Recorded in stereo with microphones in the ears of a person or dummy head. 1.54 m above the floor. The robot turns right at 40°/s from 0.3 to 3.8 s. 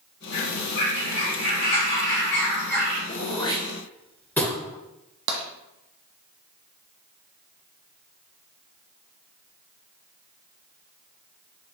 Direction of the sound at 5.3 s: 55° right (ahead or behind).